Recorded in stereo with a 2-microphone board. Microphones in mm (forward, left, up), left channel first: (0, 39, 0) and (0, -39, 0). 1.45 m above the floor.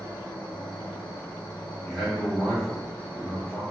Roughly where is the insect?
Left.